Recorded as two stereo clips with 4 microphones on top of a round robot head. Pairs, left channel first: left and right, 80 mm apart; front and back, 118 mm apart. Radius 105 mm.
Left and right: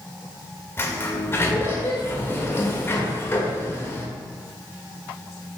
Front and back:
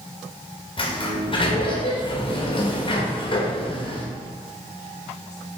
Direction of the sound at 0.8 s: 35° left.